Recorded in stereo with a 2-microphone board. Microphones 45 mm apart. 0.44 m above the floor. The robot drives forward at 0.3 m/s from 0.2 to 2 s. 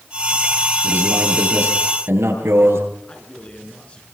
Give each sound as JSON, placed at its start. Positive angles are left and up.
{"t": 0.8, "sound": "a man speaking", "side_deg": -80, "distance_m": 10.0}
{"t": 3.0, "sound": "a man speaking", "side_deg": 30, "distance_m": 6.5}